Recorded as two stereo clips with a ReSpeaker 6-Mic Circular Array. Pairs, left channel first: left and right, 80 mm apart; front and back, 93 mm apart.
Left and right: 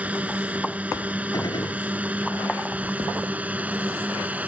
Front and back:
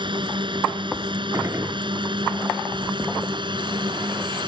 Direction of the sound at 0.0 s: 160° right.